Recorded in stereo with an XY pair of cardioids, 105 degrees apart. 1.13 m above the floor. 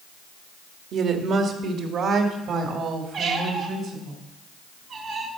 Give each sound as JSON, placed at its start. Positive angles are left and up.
{"t": 0.9, "sound": "a woman speaking", "azimuth_deg": -70, "distance_m": 1.7}
{"t": 3.1, "sound": "a squeak", "azimuth_deg": -70, "distance_m": 2.5}